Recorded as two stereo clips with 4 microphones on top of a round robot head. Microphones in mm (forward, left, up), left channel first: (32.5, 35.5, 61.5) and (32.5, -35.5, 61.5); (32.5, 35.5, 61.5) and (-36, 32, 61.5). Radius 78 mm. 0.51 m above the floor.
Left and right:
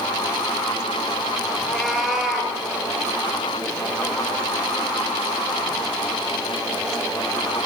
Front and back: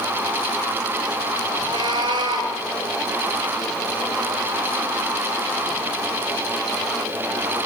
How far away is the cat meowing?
About 6.5 m.